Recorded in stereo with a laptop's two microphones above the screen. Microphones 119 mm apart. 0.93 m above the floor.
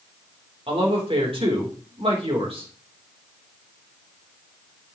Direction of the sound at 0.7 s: 45° right (ahead or behind).